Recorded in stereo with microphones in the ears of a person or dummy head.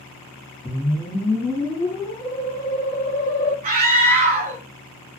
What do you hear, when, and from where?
0.7 s a whoosh: 15° left (ahead or behind), 0.9 m
3.6 s a scream: 45° right (ahead or behind), 0.8 m